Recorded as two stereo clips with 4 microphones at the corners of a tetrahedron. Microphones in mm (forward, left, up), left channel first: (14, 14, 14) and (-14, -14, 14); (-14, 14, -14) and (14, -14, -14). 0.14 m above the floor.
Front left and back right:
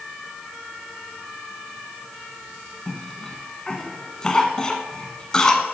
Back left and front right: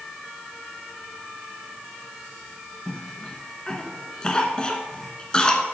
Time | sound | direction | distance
2.9 | a cough | 95° left | 1.1 m